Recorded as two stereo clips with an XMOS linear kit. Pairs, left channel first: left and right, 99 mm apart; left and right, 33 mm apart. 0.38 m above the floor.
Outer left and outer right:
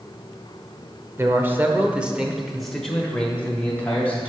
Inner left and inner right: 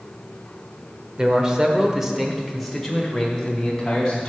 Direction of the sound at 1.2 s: 25° right (ahead or behind).